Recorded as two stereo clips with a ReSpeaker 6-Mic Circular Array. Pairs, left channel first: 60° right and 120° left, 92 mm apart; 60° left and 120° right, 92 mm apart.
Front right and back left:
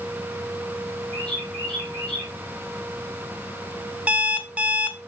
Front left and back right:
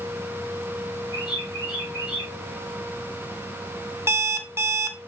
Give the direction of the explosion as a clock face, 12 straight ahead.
No explosion in this recording.